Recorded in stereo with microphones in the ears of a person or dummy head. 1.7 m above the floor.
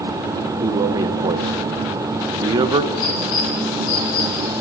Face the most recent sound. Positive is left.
turn(degrees=75)  # may be behind; listen again after turning